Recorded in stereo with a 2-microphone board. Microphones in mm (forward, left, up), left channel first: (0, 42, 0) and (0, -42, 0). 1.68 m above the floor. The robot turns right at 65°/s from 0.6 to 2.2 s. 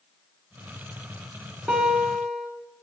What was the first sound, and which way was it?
A guitar, 10° right.